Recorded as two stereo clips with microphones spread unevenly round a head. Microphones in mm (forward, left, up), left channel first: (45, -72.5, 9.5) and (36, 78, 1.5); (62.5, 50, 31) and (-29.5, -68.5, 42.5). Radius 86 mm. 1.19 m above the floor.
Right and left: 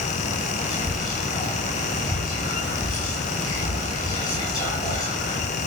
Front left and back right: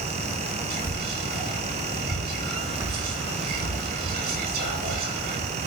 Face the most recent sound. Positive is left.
turn(degrees=-155)